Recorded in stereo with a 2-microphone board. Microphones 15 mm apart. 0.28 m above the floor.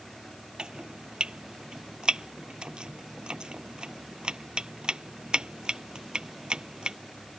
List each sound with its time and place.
0.6 s chopping: 75° right (ahead or behind)